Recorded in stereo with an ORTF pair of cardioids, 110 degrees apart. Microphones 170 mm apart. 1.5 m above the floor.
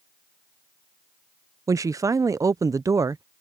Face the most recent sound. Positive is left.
turn(degrees=-20)